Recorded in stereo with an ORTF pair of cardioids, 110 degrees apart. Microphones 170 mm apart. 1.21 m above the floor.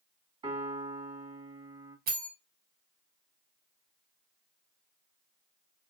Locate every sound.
0.4 s a piano: 30° right, 1.8 m
2.1 s a bell: 60° right, 1.5 m